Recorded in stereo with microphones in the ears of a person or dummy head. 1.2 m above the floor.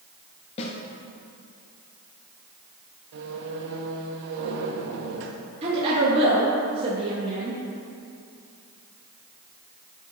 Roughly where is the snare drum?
Left.